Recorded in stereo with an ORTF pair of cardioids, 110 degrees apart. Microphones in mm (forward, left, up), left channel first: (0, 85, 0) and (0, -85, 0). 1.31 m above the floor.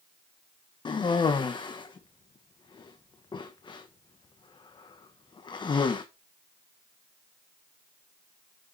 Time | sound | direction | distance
0.8 | a cough | 25° left | 1.1 m